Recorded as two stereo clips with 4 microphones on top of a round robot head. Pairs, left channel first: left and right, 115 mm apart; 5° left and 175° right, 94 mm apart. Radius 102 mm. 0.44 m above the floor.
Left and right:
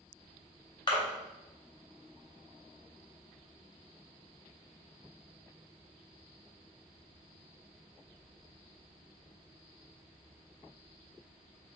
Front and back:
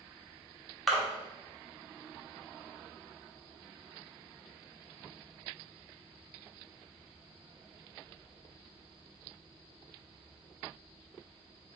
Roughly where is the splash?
Left.